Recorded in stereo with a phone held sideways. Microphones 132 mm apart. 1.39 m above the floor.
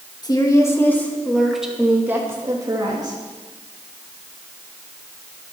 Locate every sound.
0.2 s a woman speaking: 30° left (ahead or behind), 2.5 m; by 3.2 s 35° right (ahead or behind), 3 m